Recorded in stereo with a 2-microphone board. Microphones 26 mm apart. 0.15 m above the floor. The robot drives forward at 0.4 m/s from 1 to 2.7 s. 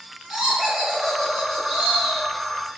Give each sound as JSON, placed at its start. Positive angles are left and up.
{"t": 0.3, "sound": "laughter", "side_deg": -5, "distance_m": 1.7}